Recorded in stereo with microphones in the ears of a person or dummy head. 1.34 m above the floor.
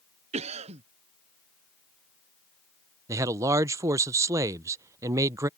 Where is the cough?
35° right (ahead or behind).